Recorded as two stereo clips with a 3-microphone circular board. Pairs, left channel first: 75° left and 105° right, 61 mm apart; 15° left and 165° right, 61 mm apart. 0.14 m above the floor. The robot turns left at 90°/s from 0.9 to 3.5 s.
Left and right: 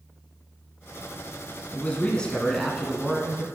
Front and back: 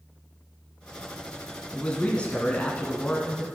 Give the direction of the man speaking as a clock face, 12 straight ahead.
10 o'clock.